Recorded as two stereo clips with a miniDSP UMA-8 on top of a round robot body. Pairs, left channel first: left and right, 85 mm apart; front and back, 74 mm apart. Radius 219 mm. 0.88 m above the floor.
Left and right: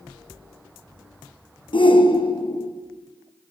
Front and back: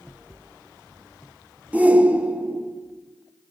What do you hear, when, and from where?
1.7 s a shout: 110° left, 2.5 m